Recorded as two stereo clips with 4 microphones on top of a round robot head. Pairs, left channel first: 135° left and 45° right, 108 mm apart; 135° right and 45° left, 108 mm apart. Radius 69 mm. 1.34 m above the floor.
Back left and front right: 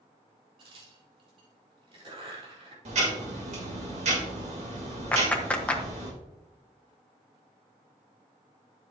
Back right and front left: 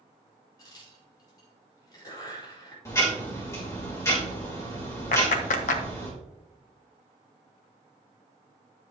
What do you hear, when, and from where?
0.6 s a crack: 80° right, 4 m
2.9 s ticking: 70° right, 3 m
5.1 s a clap: 145° right, 1.3 m